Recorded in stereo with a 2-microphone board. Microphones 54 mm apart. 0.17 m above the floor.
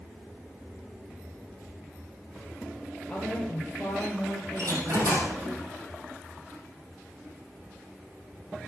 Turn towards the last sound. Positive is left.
turn(degrees=-70)  # may be behind; listen again after turning